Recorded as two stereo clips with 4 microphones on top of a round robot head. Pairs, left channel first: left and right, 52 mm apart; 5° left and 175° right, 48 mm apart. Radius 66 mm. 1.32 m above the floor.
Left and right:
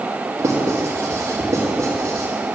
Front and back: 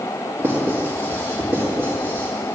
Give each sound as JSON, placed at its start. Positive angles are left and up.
{"t": 0.4, "sound": "writing", "azimuth_deg": -125, "distance_m": 1.8}